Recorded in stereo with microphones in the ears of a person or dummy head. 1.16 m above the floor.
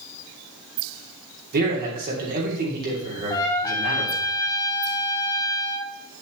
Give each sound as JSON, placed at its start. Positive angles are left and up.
{"t": 1.5, "sound": "a man speaking", "side_deg": -50, "distance_m": 3.0}
{"t": 3.3, "sound": "a trumpet", "side_deg": 20, "distance_m": 1.7}